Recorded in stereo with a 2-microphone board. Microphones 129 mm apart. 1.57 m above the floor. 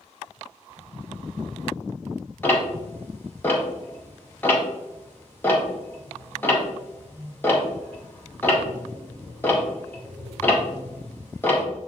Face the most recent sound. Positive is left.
turn(degrees=15)  # may be behind; listen again after turning